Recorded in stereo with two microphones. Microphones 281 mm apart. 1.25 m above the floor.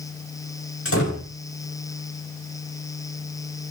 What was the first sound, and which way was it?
A door slam, 50° left (ahead or behind).